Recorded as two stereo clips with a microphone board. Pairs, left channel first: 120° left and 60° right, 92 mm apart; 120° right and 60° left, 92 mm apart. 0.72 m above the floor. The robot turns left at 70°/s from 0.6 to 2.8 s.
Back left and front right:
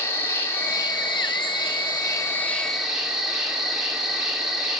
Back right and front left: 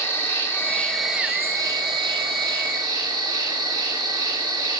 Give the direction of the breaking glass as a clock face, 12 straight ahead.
I don't hear breaking glass.